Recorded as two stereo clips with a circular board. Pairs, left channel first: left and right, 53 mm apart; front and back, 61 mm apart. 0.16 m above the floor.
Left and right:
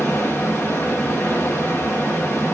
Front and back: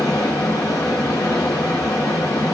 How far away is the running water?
About 1.8 m.